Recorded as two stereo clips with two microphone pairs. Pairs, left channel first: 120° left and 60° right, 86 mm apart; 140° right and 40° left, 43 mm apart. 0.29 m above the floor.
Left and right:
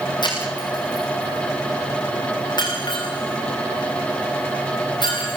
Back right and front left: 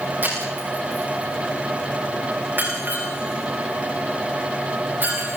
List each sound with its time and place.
0.2 s breaking glass: 85° left, 9.5 m